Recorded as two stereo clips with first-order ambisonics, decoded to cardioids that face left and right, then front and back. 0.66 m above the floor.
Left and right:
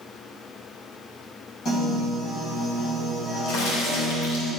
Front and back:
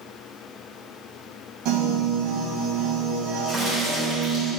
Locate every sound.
1.6 s a piano: 150° left, 4 m
3.5 s a crack: 110° left, 3 m